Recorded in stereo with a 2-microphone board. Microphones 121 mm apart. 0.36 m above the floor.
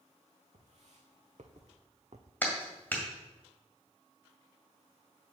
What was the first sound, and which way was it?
Footsteps, 65° right (ahead or behind).